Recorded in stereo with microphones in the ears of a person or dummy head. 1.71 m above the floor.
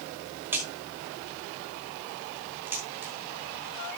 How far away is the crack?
About 5.5 m.